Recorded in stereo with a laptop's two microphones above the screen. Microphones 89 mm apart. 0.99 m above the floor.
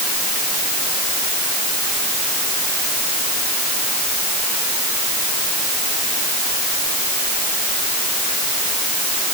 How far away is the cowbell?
No cowbell in this recording.